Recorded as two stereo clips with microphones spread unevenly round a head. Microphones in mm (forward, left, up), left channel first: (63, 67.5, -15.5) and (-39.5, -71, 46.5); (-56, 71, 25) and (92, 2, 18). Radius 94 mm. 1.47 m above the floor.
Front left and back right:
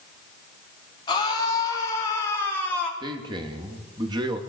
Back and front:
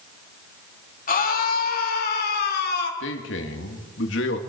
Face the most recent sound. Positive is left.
turn(degrees=165)